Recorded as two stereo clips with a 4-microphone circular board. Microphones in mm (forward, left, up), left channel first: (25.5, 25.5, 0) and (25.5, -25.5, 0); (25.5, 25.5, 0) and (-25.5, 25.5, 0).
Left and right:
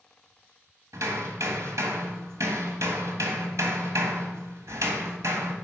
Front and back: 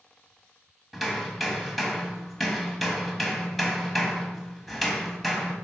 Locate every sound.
0.9 s hammering: 90° right, 1.4 m